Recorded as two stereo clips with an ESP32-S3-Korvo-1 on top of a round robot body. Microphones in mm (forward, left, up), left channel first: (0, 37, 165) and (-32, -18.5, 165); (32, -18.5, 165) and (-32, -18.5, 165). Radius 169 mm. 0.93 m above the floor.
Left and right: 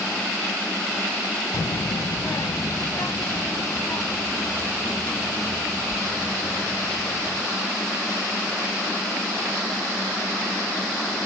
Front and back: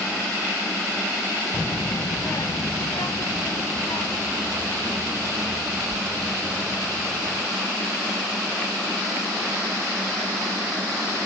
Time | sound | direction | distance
1.5 | a child speaking | 60° left | 0.6 m